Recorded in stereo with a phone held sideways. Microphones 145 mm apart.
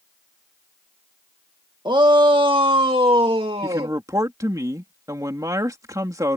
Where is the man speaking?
25° right (ahead or behind).